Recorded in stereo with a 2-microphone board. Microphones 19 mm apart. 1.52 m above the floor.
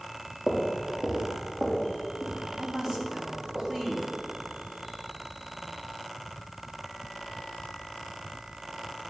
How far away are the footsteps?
About 4 m.